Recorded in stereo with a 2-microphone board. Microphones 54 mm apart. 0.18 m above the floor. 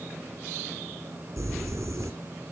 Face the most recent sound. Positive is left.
turn(degrees=-65)  # may be behind; listen again after turning